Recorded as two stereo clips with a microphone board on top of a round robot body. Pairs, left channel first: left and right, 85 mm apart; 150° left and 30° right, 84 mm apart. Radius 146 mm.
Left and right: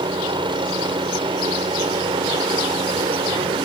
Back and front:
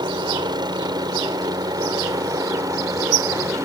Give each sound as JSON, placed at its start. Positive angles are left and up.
{"t": 0.0, "sound": "a helicopter", "azimuth_deg": -65}